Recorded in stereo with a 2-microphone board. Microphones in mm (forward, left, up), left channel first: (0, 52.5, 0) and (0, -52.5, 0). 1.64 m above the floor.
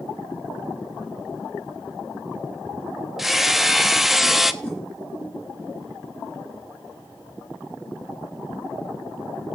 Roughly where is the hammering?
Centre.